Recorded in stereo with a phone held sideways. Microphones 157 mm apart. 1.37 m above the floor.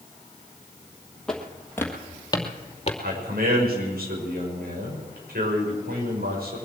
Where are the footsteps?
5° left (ahead or behind), 2 m; by 2.9 s 40° left (ahead or behind), 1.9 m.